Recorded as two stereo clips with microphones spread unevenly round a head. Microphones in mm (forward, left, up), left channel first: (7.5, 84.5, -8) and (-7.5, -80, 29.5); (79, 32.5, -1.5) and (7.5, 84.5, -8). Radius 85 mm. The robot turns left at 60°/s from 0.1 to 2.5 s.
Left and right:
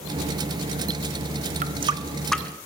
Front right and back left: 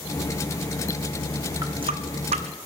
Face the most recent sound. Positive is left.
turn(degrees=165)